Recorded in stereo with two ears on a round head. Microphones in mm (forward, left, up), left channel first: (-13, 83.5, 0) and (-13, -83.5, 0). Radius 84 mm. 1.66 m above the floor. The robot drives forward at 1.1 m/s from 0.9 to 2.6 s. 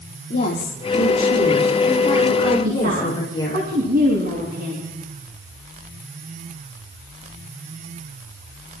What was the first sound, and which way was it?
A woman speaking, 50° left (ahead or behind).